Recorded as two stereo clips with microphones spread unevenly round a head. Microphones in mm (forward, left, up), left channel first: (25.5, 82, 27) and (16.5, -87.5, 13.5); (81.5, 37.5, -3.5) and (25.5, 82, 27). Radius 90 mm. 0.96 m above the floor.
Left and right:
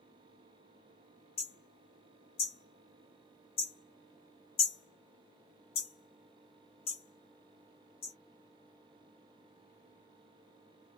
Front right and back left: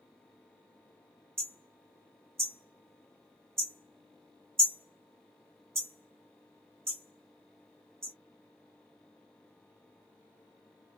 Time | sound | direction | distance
1.4 | hammering | 140° left | 1.1 m